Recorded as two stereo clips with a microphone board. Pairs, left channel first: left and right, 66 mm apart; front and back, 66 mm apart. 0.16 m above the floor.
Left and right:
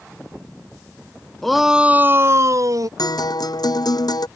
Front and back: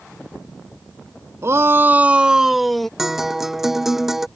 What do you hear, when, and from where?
1.4 s a shout: 175° left; by 2.9 s 85° right
3.0 s a guitar: 95° left